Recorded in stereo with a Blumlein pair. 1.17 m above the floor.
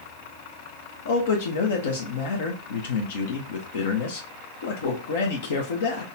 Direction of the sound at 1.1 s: 60° left.